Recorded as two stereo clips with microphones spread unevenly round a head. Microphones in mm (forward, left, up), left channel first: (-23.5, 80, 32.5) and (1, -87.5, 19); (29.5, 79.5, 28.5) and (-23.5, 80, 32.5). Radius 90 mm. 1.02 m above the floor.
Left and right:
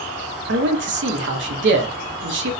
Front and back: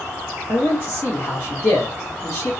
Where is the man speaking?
70° right, 0.7 m.